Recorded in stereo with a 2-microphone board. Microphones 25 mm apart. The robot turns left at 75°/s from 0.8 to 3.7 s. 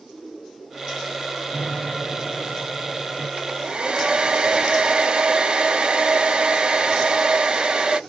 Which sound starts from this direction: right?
A hair dryer, at 3.4 s.